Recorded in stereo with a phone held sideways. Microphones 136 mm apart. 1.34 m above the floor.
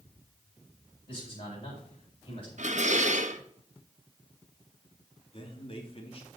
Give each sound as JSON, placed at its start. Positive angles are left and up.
{"t": 1.1, "sound": "a man speaking", "side_deg": 40, "distance_m": 6.5}
{"t": 2.6, "sound": "dishes clattering", "side_deg": -60, "distance_m": 1.0}
{"t": 5.3, "sound": "a man speaking", "side_deg": 40, "distance_m": 2.5}